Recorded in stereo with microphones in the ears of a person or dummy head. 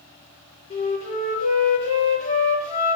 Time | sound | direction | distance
0.7 | a flute | 30° left (ahead or behind) | 4.5 m